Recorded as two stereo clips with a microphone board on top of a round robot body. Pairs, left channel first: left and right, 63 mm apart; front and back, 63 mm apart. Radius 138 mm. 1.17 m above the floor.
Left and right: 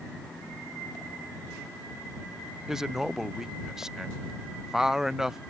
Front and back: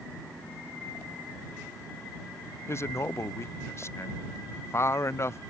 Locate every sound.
2.7 s a man speaking: 10° right